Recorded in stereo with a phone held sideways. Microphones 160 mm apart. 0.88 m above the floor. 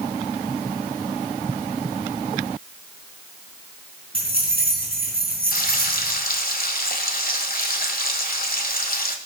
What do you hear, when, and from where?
4.1 s keys jangling: 35° right (ahead or behind), 6 m
5.5 s frying: 60° left (ahead or behind), 1.5 m